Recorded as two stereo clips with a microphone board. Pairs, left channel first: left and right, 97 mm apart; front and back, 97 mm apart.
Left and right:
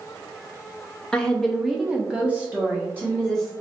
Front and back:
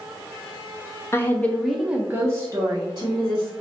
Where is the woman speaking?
20° left, 0.6 m; by 3.5 s 155° right, 1.1 m.